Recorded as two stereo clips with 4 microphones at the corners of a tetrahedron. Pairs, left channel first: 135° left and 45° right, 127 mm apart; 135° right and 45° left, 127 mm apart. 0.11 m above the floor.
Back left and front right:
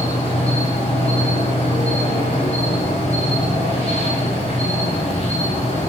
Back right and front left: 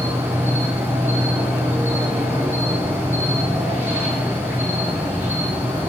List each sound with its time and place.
0.0 s an insect: 120° left, 8 m